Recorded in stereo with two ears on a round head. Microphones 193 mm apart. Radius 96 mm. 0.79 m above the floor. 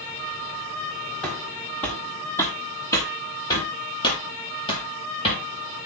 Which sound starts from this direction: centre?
Footsteps, at 1.2 s.